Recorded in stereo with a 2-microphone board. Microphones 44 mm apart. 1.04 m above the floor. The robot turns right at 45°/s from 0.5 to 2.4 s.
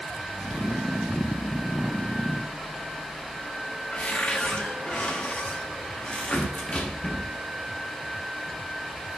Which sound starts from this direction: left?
A cupboard door, at 3.9 s.